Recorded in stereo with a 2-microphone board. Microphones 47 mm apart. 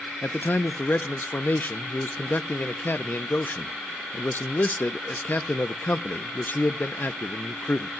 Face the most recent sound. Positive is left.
turn(degrees=45)  # may be behind; listen again after turning